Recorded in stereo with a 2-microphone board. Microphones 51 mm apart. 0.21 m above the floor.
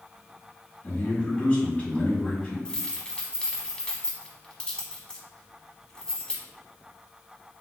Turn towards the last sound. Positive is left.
turn(degrees=15)  # may be behind; listen again after turning